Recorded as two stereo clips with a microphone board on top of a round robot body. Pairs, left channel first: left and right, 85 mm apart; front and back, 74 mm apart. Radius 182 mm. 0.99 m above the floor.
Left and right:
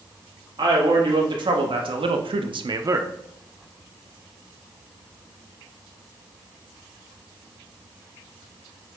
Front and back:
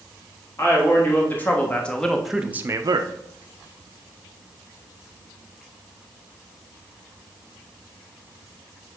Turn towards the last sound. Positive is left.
turn(degrees=-160)